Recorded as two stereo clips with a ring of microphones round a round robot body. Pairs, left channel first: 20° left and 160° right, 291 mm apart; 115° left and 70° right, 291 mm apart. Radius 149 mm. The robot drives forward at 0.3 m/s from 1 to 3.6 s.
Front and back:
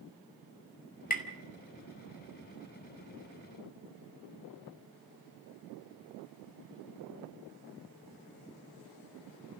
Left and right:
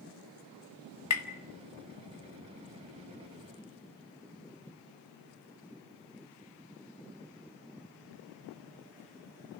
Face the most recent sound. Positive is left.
turn(degrees=115)